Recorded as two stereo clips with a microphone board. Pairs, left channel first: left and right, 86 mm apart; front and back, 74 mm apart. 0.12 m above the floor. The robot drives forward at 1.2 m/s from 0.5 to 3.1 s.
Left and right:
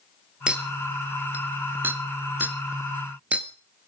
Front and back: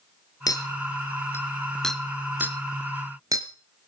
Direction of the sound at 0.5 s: 15° right.